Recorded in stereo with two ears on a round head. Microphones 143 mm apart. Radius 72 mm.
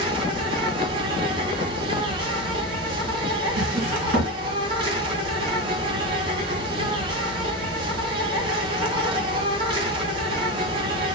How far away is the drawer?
About 2.0 m.